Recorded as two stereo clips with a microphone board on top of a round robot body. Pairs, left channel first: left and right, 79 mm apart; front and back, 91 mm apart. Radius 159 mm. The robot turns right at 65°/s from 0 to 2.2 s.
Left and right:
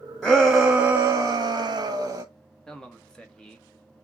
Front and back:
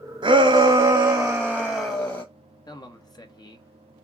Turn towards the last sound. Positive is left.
turn(degrees=15)